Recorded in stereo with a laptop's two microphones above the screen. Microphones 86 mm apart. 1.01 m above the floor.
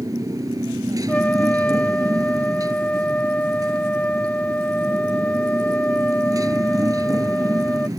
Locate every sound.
0.0 s a motorcycle: 45° right (ahead or behind)
1.1 s a trumpet: 15° left (ahead or behind)